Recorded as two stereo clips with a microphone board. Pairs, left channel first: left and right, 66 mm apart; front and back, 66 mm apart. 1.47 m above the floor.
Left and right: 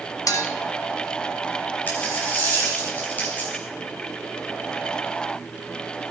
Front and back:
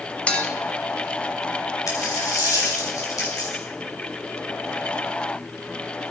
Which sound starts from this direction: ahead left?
A dropped coin, at 1.9 s.